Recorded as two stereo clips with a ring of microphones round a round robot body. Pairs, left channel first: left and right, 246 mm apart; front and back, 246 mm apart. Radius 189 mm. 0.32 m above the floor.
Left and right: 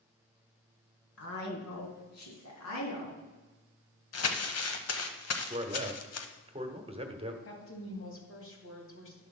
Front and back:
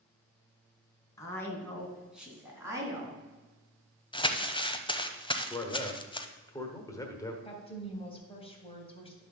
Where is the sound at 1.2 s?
75° left, 3.5 m; by 3.2 s 110° left, 3.5 m.